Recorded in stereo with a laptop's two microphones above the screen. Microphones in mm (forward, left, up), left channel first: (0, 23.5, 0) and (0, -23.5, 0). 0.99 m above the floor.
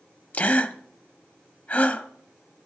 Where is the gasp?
35° left (ahead or behind), 0.9 m.